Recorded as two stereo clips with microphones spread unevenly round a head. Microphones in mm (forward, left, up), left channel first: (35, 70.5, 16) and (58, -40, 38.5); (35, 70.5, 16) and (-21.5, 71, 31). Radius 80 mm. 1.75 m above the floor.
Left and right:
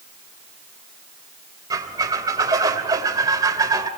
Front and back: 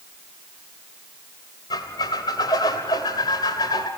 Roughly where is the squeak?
Ahead right.